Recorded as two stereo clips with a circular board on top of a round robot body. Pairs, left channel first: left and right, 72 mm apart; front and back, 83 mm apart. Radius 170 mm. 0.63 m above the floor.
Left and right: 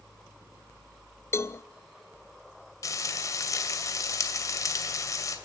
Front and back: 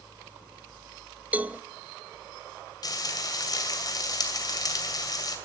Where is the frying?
45° left, 2.5 m.